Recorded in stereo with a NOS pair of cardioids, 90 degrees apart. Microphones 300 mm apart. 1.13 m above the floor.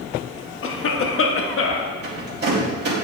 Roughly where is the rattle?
Ahead right.